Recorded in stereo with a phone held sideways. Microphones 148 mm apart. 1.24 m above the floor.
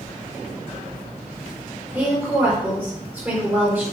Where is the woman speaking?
15° right (ahead or behind), 4 m.